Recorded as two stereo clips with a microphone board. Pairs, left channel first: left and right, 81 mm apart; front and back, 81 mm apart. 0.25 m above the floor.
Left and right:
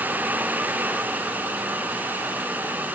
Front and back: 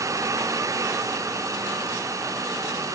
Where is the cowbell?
I don't hear a cowbell.